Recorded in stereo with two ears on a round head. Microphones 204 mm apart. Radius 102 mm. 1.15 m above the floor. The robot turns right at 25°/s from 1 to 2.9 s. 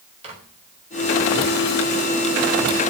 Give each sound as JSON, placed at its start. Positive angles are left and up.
{"t": 0.2, "sound": "a microwave", "side_deg": -30, "distance_m": 4.0}